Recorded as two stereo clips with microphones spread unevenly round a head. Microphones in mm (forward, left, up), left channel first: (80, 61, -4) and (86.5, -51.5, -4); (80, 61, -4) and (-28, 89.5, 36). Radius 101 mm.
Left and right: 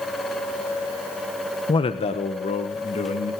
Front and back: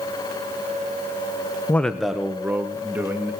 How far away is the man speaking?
About 0.8 m.